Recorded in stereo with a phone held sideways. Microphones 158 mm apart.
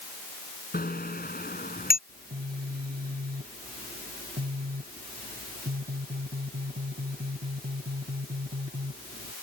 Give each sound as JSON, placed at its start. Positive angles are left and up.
{"t": 0.7, "sound": "a bicycle bell", "side_deg": 70}
{"t": 2.1, "sound": "a phone buzzing", "side_deg": -70}